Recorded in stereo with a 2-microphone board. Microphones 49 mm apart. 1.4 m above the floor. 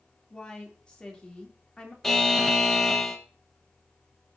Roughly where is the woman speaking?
Left.